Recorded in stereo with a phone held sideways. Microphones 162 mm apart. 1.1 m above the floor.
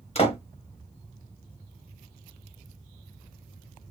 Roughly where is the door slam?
Left.